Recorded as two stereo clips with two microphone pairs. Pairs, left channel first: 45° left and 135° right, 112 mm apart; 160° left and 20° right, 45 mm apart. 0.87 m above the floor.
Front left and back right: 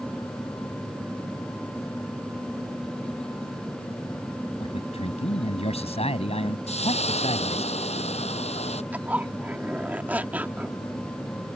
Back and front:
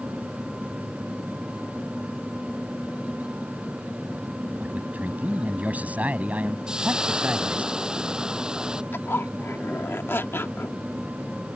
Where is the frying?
50° left.